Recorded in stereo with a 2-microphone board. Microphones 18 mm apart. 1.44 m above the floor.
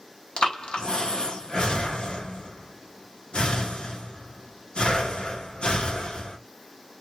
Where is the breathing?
65° left (ahead or behind), 0.8 m.